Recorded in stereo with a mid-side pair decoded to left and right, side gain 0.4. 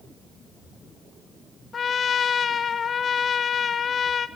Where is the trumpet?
50° left, 1.1 m.